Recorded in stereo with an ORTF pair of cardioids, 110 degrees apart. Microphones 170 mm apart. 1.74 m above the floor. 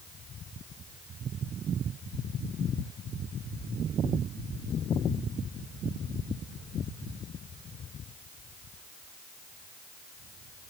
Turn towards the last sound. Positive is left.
No sound to turn to.